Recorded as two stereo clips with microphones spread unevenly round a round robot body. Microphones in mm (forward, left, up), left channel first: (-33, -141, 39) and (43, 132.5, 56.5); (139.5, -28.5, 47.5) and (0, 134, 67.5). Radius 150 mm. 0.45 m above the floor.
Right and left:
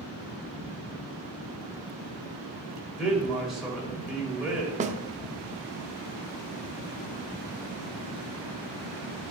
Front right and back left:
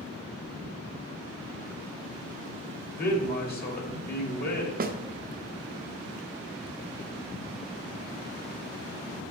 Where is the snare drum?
130° left, 0.6 m.